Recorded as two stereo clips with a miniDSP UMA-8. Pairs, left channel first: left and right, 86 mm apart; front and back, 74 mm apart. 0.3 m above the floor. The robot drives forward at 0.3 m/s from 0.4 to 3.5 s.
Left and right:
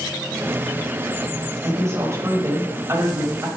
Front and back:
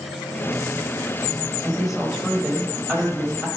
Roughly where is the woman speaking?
Right.